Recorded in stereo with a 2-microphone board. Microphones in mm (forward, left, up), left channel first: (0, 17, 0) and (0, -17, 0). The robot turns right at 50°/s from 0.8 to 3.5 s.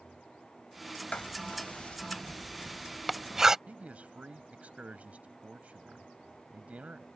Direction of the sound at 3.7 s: 45° right (ahead or behind).